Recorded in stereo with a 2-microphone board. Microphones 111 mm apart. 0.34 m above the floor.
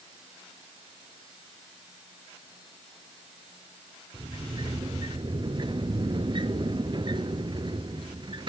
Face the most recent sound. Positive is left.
turn(degrees=-45)  # may be behind; listen again after turning